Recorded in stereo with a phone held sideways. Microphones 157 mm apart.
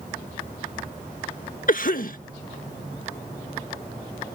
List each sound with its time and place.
1.7 s a cough: 60° left (ahead or behind)